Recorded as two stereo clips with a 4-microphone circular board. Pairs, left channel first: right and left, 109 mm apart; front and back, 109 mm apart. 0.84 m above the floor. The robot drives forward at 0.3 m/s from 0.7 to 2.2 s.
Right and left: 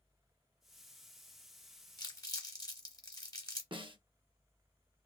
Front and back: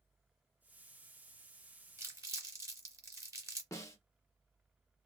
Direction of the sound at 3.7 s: 60° left.